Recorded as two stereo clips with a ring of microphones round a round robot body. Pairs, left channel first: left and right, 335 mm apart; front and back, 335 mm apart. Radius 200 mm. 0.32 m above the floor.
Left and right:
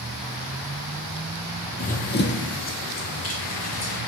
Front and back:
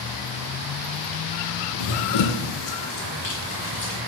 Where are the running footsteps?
20° left, 0.7 m; by 4.0 s 45° left, 2.5 m.